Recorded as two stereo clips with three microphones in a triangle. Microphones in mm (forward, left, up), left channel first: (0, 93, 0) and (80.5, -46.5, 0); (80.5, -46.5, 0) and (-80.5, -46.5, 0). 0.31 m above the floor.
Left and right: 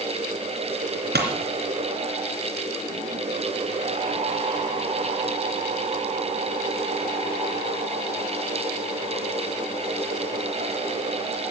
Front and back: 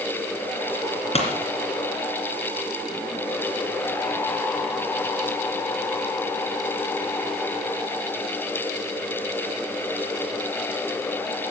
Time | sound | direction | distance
1.1 | a pop | 50° right | 2.5 m